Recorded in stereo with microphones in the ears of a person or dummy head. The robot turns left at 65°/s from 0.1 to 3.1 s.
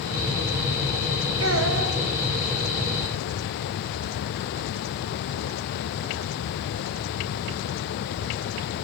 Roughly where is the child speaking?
Right.